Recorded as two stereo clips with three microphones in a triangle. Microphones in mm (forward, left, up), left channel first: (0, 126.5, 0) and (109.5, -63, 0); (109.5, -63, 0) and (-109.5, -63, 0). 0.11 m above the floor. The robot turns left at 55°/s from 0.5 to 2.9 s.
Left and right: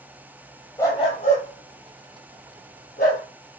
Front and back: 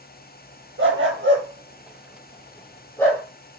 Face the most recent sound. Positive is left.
turn(degrees=80)